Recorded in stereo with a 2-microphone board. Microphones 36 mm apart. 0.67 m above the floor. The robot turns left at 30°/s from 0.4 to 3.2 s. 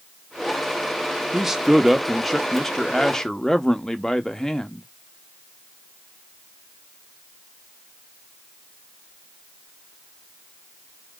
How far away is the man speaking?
About 0.8 m.